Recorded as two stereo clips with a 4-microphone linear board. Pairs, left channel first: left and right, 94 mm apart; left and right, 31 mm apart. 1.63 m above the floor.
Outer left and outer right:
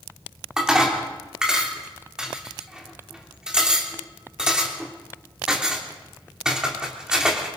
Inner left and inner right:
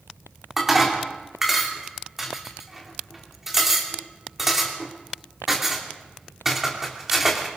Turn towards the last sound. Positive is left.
turn(degrees=-10)  # may be behind; listen again after turning